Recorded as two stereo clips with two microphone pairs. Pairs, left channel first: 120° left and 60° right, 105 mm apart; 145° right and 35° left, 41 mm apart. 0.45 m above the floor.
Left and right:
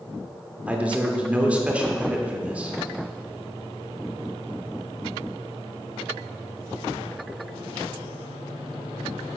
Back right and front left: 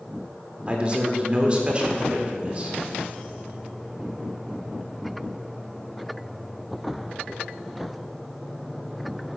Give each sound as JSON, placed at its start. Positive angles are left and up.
{"t": 0.7, "sound": "a man speaking", "azimuth_deg": 5, "distance_m": 1.1}